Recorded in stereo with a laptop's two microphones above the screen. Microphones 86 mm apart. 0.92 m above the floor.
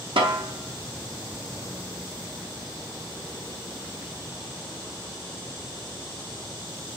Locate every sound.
0.2 s a snare drum: 70° right (ahead or behind), 0.8 m